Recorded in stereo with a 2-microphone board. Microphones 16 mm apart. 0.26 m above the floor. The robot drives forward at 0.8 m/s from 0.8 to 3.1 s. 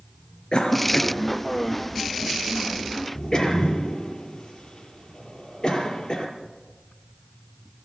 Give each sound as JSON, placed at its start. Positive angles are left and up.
{"t": 0.5, "sound": "a cough", "side_deg": 50, "distance_m": 3.5}